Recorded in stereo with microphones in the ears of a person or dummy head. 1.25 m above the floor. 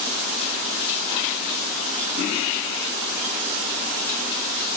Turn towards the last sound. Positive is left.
No sound to turn to.